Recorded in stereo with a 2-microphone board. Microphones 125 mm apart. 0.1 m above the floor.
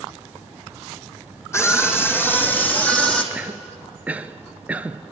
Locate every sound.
1.5 s a scream: 20° left (ahead or behind), 3.5 m; by 3.2 s 5° left (ahead or behind), 3 m
3.3 s a cough: 10° right (ahead or behind), 1.3 m